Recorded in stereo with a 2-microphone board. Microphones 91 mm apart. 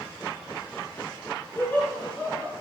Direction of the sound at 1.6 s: 20° left (ahead or behind).